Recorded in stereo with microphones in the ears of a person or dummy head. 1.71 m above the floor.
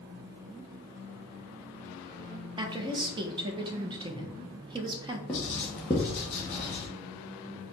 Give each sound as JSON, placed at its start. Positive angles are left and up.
{"t": 2.6, "sound": "a woman speaking", "side_deg": -30, "distance_m": 1.0}
{"t": 5.3, "sound": "writing", "side_deg": 10, "distance_m": 0.8}